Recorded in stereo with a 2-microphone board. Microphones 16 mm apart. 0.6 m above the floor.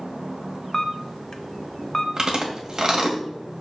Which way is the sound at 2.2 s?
45° right (ahead or behind).